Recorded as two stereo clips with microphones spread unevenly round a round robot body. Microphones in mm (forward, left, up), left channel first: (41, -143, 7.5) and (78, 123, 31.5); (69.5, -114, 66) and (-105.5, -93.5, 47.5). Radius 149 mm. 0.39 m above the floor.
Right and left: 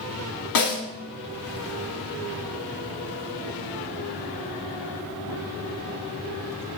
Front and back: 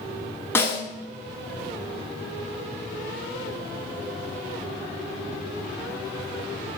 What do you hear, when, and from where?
0.6 s a snare drum: 85° right, 1.6 m